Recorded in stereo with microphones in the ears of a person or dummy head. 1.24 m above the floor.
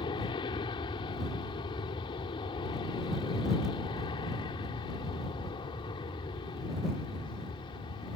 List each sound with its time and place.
0.0 s an aircraft: 25° left (ahead or behind)